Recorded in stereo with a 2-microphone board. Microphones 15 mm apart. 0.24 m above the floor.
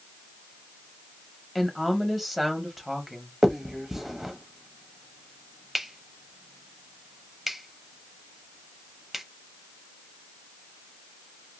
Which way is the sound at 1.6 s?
Centre (ahead or behind).